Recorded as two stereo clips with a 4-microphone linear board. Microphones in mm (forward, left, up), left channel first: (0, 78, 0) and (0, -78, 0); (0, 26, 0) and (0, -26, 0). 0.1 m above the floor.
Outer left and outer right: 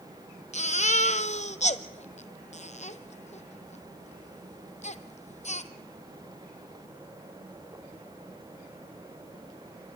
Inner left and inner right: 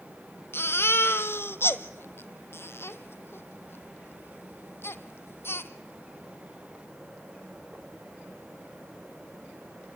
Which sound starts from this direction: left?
A baby crying, at 0.5 s.